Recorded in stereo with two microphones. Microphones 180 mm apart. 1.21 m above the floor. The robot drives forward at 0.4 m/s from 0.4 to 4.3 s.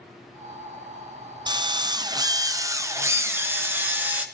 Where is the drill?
25° right (ahead or behind), 0.5 m; by 4.2 s 10° right (ahead or behind), 1.2 m.